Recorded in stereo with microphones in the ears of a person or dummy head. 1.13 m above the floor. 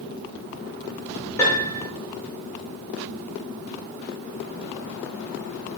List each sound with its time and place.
1.4 s a piano: 10° left (ahead or behind), 1.2 m